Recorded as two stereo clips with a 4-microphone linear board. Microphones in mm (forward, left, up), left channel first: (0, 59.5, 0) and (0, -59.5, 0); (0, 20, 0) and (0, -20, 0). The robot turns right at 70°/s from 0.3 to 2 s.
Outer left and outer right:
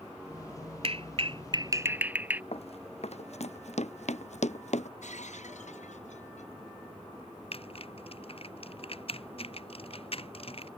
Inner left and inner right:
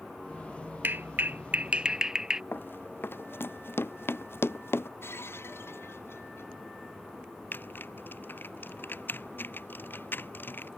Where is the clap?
50° right (ahead or behind); by 2.4 s 15° right (ahead or behind).